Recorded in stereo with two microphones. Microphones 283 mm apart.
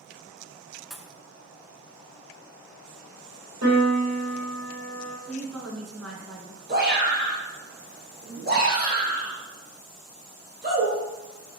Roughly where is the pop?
Centre.